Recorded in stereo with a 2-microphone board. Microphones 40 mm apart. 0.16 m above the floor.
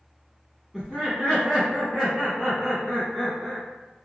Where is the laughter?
Centre (ahead or behind), 1.7 m; by 3.6 s 5° left (ahead or behind), 1.9 m.